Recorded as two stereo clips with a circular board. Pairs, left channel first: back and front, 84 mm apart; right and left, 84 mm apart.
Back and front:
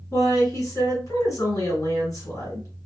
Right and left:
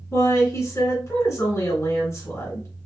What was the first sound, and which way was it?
A woman speaking, 140° right.